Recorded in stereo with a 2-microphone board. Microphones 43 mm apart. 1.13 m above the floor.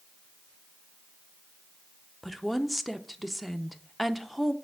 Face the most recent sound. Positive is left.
turn(degrees=0)  # may be behind; listen again after turning